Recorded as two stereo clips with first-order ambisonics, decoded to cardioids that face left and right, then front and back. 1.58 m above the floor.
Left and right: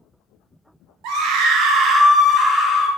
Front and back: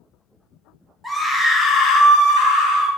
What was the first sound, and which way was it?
A scream, 90° right.